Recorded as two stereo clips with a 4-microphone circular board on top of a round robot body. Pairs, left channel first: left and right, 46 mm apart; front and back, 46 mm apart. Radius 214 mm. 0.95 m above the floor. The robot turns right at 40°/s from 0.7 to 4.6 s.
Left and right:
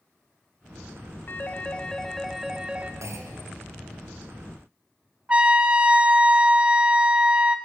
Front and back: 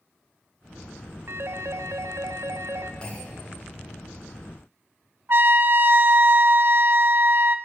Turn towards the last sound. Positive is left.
turn(degrees=-150)